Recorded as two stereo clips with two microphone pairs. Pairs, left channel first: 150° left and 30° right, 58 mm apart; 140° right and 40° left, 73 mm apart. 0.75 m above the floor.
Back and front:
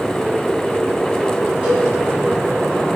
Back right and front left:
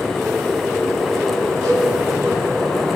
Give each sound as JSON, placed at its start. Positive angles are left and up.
{"t": 1.6, "sound": "a cowbell", "azimuth_deg": 30, "distance_m": 4.5}